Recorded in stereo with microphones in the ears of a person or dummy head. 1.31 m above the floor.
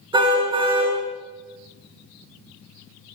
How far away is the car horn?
About 6 m.